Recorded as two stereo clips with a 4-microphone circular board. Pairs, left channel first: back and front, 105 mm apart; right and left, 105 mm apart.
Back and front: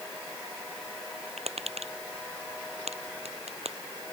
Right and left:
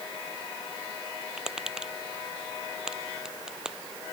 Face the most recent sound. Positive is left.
turn(degrees=5)